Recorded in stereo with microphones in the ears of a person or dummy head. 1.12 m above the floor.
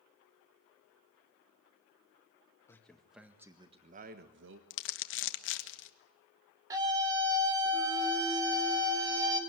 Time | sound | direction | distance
2.7 | a man speaking | 5° left (ahead or behind) | 1.9 m
4.7 | crumpling | 65° left (ahead or behind) | 1.3 m
6.7 | a scream | 15° right (ahead or behind) | 4 m